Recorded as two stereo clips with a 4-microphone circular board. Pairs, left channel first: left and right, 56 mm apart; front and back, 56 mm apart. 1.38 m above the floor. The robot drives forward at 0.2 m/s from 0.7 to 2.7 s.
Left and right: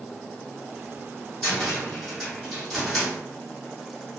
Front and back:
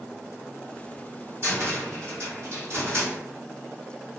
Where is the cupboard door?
170° left, 1.5 m.